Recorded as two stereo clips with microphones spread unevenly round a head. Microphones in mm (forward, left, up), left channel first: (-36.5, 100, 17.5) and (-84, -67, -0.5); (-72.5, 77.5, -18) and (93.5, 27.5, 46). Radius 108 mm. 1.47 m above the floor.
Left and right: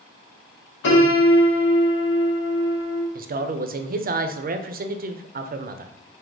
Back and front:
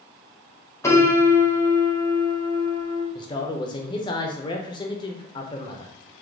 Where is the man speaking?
140° right, 0.5 m.